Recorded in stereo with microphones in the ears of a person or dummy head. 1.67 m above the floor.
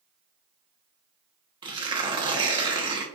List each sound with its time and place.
1.6 s tearing paper: 20° right (ahead or behind), 0.8 m